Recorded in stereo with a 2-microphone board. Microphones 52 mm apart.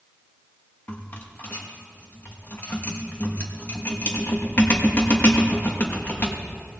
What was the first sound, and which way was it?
A rattle, 40° left (ahead or behind).